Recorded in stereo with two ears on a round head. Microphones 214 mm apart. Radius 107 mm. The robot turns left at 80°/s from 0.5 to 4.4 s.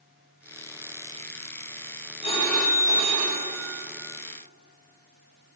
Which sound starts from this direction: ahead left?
A phone ringing, at 2.2 s.